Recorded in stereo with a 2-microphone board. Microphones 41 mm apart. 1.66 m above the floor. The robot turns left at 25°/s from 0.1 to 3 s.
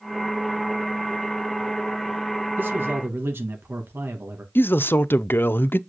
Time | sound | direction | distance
2.6 | a man speaking | 55° right (ahead or behind) | 2.5 m
4.5 | a man speaking | 60° left (ahead or behind) | 0.5 m